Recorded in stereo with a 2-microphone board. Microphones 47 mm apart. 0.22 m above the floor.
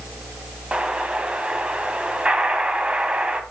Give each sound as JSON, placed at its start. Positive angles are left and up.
{"t": 0.7, "sound": "an explosion", "side_deg": -25, "distance_m": 1.4}